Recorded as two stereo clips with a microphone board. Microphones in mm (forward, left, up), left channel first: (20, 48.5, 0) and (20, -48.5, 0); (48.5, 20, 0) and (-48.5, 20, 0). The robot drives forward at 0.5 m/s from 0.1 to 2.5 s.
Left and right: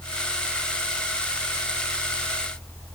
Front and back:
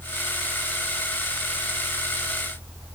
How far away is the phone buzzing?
I don't hear a phone buzzing.